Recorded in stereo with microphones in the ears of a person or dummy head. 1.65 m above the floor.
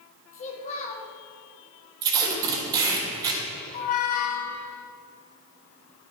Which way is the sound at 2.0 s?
20° right (ahead or behind).